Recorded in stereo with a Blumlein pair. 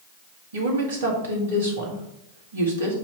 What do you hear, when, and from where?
0.5 s a woman speaking: 65° right, 2.0 m